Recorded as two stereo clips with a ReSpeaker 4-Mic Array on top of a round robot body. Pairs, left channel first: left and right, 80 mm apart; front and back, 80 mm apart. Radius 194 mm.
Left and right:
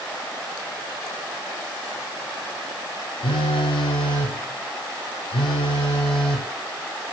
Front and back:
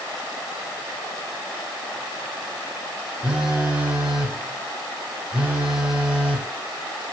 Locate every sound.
3.2 s a phone buzzing: 100° left, 0.8 m